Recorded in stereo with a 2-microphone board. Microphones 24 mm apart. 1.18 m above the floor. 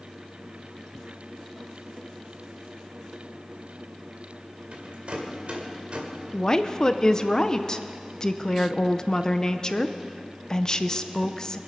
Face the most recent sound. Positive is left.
turn(degrees=30)  # may be behind; listen again after turning